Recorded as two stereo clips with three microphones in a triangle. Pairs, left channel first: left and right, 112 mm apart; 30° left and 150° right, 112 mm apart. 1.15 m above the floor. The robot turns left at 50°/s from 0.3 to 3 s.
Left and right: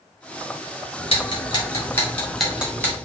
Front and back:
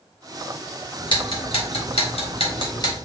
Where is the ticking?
70° left, 1.3 m; by 3.0 s 30° right, 1.3 m.